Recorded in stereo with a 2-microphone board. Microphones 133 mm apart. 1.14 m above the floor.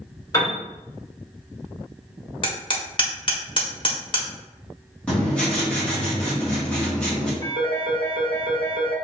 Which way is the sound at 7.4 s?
70° right (ahead or behind).